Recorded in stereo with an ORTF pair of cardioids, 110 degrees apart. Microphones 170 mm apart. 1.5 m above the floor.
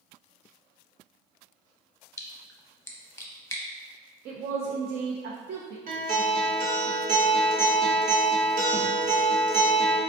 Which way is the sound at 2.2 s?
15° left.